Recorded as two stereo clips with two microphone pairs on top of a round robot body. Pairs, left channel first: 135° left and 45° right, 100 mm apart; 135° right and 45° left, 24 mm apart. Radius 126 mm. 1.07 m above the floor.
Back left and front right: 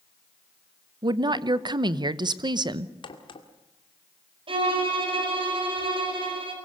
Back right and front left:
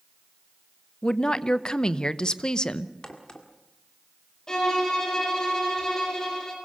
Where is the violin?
75° right, 5 m.